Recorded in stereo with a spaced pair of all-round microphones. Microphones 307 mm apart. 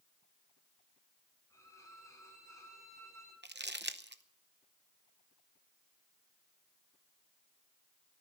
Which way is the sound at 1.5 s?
10° left (ahead or behind).